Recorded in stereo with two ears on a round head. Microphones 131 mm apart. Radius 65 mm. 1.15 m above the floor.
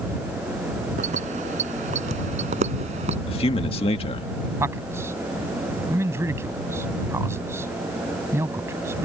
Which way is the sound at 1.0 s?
55° right (ahead or behind).